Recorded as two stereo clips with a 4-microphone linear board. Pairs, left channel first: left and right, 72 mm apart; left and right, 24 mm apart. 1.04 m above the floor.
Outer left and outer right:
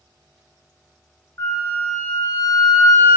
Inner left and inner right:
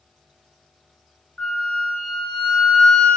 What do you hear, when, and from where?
1.4 s a flute: 45° left (ahead or behind), 0.7 m